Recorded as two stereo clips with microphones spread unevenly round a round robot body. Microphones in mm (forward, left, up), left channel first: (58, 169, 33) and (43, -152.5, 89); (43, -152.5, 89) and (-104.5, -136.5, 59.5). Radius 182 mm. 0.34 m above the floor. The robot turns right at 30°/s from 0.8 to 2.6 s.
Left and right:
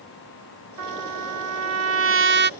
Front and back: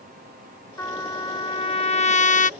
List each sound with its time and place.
0.8 s a trumpet: 85° right; by 2.5 s 35° right